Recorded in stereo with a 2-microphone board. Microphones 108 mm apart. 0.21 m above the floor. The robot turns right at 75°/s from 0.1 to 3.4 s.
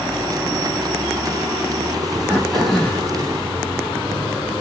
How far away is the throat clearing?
About 1.2 m.